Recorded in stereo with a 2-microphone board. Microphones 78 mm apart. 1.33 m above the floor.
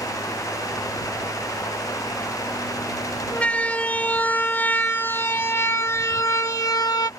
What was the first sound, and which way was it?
A siren, 20° left (ahead or behind).